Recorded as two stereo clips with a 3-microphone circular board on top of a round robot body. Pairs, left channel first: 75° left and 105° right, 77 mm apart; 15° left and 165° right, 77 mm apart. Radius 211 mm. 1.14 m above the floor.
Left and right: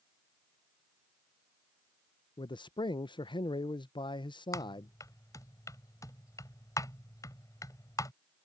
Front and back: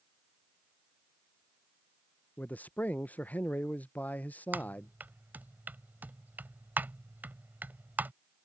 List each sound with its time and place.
2.4 s a man speaking: 85° left
4.5 s typing on a keyboard: 125° left